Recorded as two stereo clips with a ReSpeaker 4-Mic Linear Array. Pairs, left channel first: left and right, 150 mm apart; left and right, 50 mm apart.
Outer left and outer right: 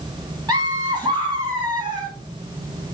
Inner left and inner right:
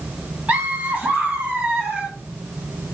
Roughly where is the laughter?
Right.